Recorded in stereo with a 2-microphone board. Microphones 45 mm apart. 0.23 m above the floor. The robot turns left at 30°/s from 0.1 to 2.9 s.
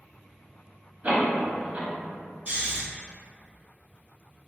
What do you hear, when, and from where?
1.0 s a door slam: 30° right (ahead or behind), 0.9 m
2.5 s snoring: 30° right (ahead or behind), 1.3 m; by 2.8 s 35° right (ahead or behind), 1.3 m